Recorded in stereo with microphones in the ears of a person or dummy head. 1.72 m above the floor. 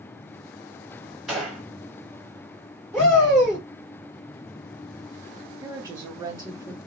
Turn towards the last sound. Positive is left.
turn(degrees=-20)  # may be behind; listen again after turning